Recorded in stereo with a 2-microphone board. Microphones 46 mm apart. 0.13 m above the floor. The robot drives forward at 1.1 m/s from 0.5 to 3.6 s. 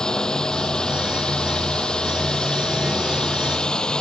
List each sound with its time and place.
0.0 s a drone: 20° left (ahead or behind)